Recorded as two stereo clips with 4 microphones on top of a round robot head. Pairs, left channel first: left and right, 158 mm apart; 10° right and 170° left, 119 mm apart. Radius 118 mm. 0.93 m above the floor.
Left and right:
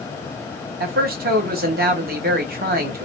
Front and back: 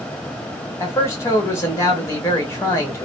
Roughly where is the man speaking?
Right.